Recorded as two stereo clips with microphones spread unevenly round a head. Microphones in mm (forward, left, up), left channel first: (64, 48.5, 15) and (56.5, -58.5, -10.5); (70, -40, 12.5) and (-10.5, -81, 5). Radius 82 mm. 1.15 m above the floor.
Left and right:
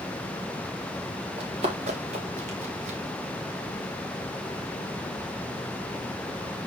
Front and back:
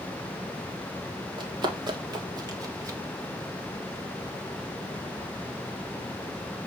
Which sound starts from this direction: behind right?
Running footsteps, at 1.4 s.